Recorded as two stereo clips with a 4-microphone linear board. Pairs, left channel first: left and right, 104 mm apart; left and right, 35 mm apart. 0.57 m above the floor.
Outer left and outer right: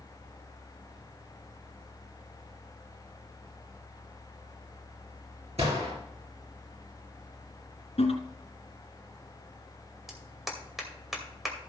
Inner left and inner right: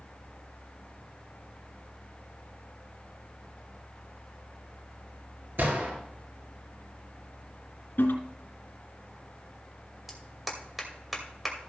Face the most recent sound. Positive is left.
turn(degrees=0)  # may be behind; listen again after turning